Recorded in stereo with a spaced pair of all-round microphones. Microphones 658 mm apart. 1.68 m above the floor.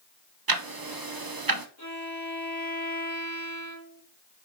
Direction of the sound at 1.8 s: 25° left (ahead or behind).